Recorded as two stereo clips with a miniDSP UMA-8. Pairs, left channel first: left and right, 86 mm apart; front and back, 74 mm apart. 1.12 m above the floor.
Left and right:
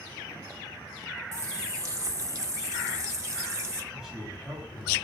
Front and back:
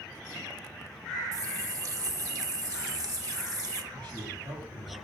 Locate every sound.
1.3 s a running tap: 145° right, 0.9 m
3.9 s a man speaking: 170° right, 6 m